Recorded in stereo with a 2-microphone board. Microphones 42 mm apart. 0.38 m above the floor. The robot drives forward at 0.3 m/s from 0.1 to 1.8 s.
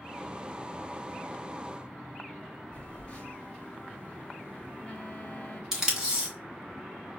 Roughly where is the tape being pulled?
Centre.